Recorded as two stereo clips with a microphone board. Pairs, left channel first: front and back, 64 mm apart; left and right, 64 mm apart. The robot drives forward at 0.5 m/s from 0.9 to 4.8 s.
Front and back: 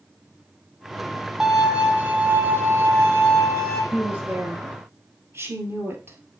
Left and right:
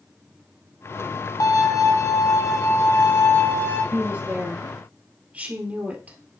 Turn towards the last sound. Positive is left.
turn(degrees=-145)